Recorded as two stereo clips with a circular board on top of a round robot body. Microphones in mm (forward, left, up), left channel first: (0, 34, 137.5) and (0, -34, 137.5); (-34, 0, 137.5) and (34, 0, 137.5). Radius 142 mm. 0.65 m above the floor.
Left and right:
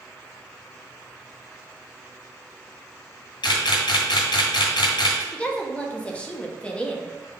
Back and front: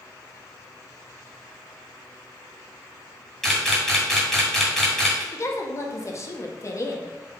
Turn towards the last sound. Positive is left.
turn(degrees=160)